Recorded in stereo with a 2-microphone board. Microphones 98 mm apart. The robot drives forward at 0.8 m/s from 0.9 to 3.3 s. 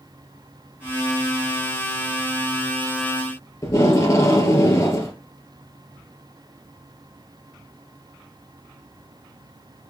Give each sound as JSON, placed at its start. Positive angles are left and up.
{"t": 3.6, "sound": "tape being pulled", "side_deg": 35, "distance_m": 2.5}